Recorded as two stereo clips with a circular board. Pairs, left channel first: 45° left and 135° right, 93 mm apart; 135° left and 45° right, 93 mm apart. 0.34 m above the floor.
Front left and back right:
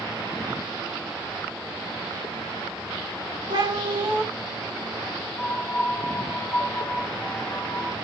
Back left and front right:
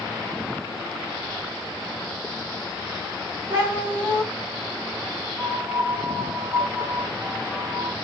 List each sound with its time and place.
3.5 s a cat meowing: 115° right, 1.9 m
5.4 s a piano: 20° left, 0.9 m